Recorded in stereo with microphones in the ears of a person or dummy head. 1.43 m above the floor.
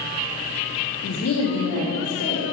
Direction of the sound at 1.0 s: 45° left (ahead or behind).